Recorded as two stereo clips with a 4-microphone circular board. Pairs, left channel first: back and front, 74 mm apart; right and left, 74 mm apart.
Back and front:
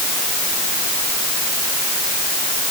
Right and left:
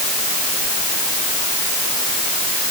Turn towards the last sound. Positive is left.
No sound to turn to.